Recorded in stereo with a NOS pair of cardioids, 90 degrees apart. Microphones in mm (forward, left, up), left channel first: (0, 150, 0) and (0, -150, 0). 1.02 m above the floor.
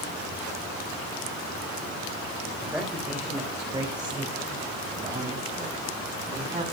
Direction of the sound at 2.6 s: Straight ahead.